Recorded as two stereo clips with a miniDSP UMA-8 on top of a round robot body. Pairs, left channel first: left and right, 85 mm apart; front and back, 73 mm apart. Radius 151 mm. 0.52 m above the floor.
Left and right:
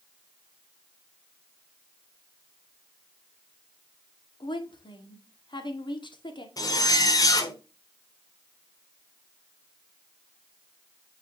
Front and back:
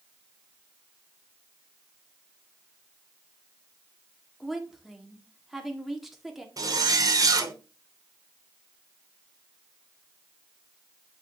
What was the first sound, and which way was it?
A woman speaking, 95° left.